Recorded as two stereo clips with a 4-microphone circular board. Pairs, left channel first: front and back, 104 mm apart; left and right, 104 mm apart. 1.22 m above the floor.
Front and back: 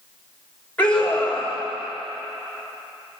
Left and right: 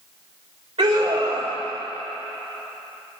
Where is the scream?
75° right, 3.5 m.